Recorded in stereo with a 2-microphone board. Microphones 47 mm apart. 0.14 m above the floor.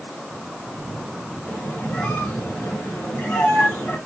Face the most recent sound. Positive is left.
turn(degrees=40)  # may be behind; listen again after turning